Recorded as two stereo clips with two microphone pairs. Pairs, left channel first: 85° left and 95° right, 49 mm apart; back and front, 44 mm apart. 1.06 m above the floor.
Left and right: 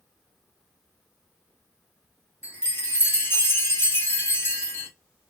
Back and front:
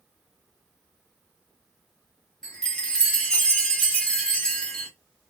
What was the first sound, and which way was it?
A chime, 110° left.